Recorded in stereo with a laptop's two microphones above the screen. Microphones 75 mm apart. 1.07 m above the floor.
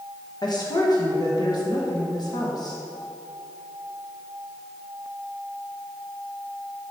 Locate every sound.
0.4 s a woman speaking: 60° left (ahead or behind), 1.3 m